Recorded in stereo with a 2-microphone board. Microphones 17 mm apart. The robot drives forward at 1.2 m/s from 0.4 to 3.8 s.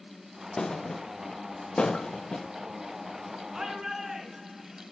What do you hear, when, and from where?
0.6 s a thud: 45° left (ahead or behind), 5 m; by 2.5 s 75° left (ahead or behind), 3.5 m
3.5 s a shout: 30° right (ahead or behind), 3.5 m; by 4.8 s 25° right (ahead or behind), 4 m